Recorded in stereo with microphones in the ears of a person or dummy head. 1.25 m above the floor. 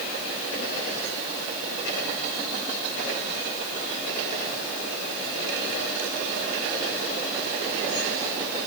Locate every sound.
Only background noise.